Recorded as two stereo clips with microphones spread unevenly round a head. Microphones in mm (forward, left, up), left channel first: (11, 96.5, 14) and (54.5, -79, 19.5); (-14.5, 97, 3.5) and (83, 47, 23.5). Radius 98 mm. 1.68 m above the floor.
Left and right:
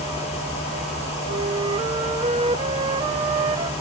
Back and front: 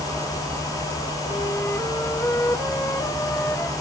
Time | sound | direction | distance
1.3 | a flute | 125° right | ?